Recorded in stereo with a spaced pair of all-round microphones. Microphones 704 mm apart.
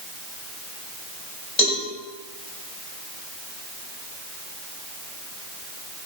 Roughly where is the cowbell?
Left.